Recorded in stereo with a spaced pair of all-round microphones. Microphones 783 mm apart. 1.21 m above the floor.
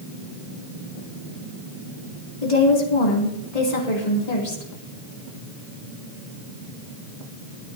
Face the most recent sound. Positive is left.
turn(degrees=55)  # may be behind; listen again after turning